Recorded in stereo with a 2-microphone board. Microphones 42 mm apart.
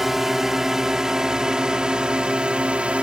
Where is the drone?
10° right (ahead or behind); by 3.0 s 30° right (ahead or behind).